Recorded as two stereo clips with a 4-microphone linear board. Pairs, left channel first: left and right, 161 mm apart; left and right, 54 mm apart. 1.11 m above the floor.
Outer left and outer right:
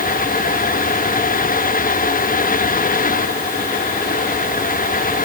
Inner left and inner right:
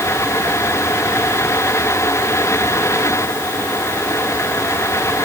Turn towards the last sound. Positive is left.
No sound to turn to.